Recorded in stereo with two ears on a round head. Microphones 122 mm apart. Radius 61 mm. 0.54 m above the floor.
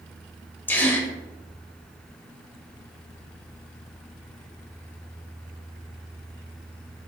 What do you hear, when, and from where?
0.7 s a gasp: 15° left (ahead or behind), 0.5 m